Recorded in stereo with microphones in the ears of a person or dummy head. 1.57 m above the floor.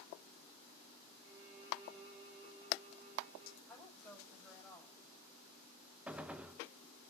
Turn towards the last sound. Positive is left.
turn(degrees=0)  # may be behind; listen again after turning